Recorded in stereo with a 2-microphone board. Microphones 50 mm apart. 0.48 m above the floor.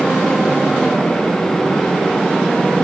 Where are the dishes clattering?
No dishes clattering in this recording.